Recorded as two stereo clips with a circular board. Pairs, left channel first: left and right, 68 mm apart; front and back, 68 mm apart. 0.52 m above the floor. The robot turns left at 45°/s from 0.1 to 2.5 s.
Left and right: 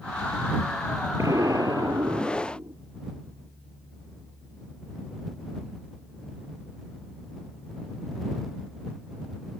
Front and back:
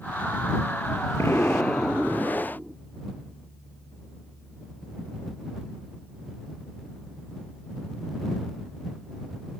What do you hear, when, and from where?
1.2 s an explosion: 50° right; by 2.8 s 110° right